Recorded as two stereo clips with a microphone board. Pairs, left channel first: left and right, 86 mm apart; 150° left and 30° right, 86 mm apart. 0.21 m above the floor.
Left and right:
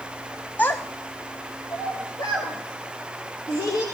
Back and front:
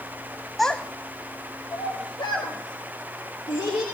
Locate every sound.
0.6 s a child speaking: 65° left, 0.5 m; by 3.8 s 125° left, 3.5 m